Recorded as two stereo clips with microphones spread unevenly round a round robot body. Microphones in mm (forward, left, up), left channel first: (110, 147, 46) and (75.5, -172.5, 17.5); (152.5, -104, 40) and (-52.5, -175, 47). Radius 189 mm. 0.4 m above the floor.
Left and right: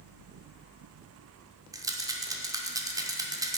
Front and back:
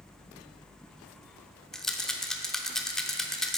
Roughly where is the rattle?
Ahead right.